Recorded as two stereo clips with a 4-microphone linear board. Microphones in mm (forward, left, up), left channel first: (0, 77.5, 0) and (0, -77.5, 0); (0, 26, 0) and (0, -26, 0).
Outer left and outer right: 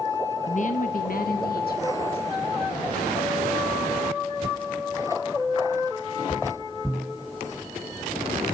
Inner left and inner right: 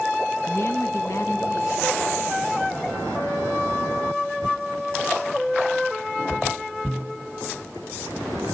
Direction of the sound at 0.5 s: 50° left (ahead or behind).